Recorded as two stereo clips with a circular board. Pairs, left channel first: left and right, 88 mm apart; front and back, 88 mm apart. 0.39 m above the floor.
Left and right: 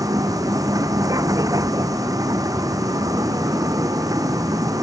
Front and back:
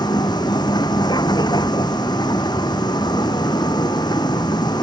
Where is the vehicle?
40° right.